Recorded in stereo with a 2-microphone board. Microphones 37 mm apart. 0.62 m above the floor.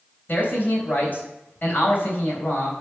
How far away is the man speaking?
About 3.5 m.